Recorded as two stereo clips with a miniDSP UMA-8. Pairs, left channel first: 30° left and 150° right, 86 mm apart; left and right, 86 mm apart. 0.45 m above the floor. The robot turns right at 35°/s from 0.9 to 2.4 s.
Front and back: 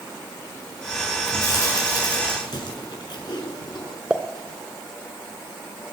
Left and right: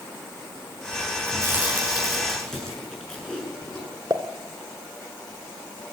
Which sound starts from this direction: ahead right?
Chewing, at 1.3 s.